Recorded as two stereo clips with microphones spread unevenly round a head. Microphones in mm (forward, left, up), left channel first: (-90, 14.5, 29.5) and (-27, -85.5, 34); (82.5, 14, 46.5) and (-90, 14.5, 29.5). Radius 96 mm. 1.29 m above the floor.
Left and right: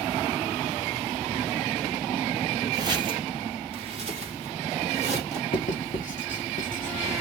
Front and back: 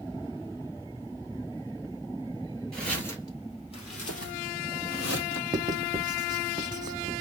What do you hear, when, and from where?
2.7 s footsteps: 80° right, 1.4 m; by 5.4 s 20° right, 2.5 m
5.5 s writing: 110° left, 0.7 m